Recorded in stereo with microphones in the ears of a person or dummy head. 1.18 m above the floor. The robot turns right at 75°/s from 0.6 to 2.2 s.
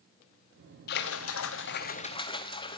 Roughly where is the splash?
Ahead left.